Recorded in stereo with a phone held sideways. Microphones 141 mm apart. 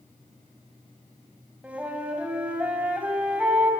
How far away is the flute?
About 3.5 m.